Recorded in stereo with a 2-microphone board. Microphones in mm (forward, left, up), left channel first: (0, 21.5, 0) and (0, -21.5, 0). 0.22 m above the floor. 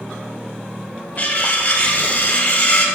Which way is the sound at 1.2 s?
50° left (ahead or behind).